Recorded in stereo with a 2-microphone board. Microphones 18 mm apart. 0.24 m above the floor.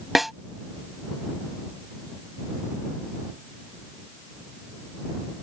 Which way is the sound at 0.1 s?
10° right (ahead or behind).